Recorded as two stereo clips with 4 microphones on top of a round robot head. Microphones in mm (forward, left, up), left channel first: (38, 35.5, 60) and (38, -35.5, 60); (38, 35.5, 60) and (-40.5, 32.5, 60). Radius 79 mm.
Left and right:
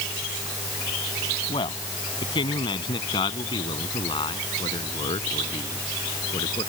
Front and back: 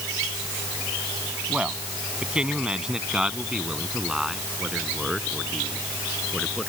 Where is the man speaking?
110° left; by 6.7 s 95° left.